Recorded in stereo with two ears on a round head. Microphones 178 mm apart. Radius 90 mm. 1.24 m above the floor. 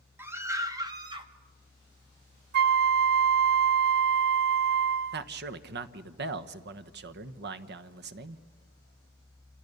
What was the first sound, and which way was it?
A scream, 10° right (ahead or behind).